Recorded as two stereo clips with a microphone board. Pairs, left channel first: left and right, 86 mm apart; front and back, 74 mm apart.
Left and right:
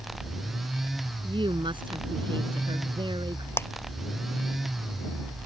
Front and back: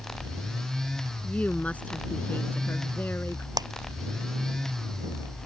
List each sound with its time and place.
1.2 s a woman speaking: 75° right; by 3.5 s 65° right
3.6 s a clap: 150° left